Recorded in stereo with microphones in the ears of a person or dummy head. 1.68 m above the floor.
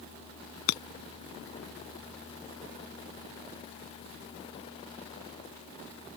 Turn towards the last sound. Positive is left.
turn(degrees=65)  # may be behind; listen again after turning